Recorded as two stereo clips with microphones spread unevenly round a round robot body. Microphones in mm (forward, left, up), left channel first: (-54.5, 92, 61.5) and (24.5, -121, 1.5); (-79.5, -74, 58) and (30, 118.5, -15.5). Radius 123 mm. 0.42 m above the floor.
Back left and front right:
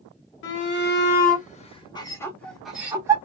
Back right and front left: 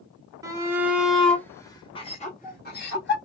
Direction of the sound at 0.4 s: 95° left.